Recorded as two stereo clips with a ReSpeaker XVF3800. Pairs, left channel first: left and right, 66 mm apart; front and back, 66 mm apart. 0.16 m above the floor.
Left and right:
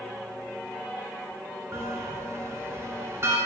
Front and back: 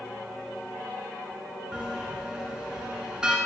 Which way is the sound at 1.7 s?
110° right.